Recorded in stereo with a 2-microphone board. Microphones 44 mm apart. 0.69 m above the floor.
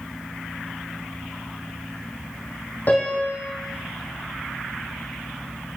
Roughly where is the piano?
Left.